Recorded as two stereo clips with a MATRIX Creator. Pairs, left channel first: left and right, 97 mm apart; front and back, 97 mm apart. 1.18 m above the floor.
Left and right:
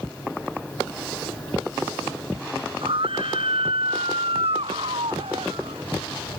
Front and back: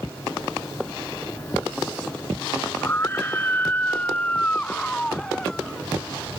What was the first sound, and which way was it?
A scream, 65° right.